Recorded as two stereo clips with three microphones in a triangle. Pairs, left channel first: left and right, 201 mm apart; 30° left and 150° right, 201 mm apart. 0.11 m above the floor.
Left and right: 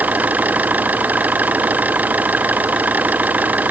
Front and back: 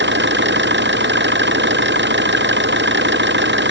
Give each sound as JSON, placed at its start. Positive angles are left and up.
{"t": 0.0, "sound": "an engine running", "azimuth_deg": -170}